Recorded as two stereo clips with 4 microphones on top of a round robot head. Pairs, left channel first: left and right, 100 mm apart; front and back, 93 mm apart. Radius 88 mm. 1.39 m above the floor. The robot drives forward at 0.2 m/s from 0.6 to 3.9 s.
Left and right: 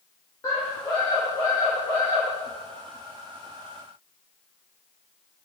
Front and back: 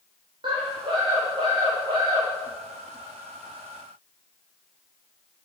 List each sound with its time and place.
0.4 s a scream: 155° left, 3.5 m